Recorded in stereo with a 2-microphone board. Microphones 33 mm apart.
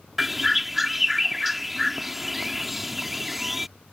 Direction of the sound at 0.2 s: 5° right (ahead or behind).